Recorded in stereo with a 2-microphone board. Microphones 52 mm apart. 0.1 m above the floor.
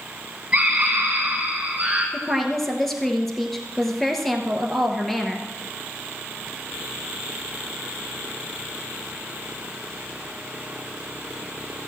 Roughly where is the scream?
Right.